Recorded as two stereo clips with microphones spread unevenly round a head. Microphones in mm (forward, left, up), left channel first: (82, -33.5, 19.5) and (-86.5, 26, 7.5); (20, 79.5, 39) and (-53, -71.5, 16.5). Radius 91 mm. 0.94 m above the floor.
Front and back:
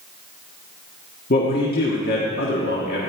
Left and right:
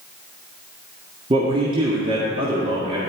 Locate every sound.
1.3 s a man speaking: 55° right, 1.7 m